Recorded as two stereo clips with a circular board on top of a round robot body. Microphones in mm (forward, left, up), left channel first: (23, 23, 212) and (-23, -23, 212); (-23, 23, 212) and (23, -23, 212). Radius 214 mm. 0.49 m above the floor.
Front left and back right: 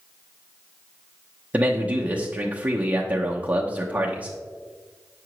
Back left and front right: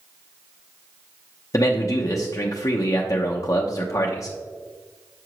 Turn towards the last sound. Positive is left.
turn(degrees=160)